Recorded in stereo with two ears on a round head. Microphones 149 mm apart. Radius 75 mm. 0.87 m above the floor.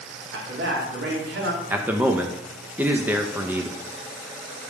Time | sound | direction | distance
0.3 | a man speaking | 75° right (ahead or behind) | 1.8 m
1.7 | a man speaking | 10° right (ahead or behind) | 0.6 m